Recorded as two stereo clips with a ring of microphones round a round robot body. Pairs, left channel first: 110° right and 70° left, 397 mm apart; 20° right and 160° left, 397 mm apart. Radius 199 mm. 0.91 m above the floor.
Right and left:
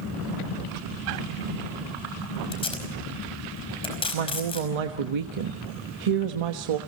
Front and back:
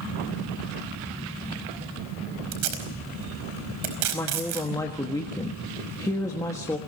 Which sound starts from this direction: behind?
Tape being pulled, at 2.5 s.